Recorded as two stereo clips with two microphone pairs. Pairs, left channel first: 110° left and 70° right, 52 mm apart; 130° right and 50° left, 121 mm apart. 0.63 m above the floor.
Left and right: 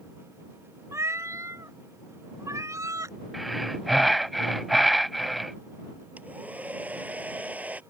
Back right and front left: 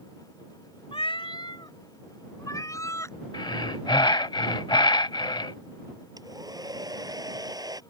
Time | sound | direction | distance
0.9 | a cat meowing | 95° right | ?
3.3 | breathing | 160° right | ?
6.2 | a hair dryer | 10° right | ?